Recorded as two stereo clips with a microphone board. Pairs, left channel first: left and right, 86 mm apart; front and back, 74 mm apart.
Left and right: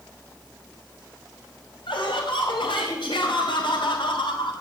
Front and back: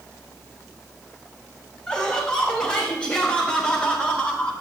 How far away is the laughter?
About 5.5 m.